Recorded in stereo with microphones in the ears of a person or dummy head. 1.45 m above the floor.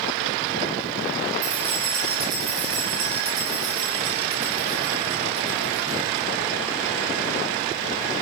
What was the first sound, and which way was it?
Keys jangling, 25° right (ahead or behind).